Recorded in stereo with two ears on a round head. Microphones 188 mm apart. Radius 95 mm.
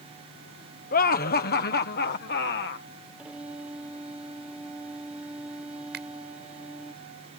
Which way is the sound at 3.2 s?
5° right (ahead or behind).